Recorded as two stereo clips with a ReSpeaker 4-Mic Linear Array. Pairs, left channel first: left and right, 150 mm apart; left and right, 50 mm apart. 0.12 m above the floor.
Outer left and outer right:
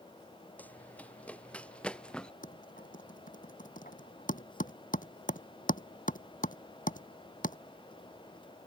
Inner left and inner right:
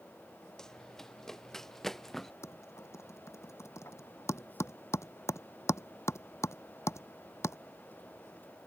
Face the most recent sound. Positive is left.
turn(degrees=65)  # may be behind; listen again after turning